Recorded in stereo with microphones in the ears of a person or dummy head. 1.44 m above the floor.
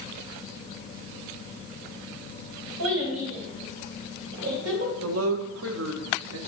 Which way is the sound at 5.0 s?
80° right.